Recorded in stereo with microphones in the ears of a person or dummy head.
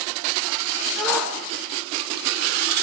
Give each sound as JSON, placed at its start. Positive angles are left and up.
{"t": 1.0, "sound": "a shout", "side_deg": 0, "distance_m": 5.0}